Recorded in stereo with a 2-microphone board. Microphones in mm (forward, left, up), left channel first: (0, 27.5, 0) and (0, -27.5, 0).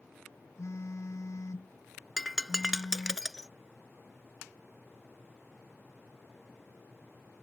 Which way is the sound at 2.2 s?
10° right (ahead or behind).